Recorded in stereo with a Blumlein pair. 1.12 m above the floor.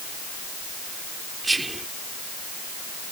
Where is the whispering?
10° right.